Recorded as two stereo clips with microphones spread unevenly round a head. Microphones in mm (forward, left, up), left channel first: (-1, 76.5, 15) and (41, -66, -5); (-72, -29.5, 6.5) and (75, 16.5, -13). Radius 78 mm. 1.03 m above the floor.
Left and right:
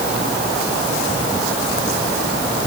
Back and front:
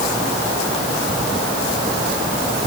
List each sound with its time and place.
Only background noise.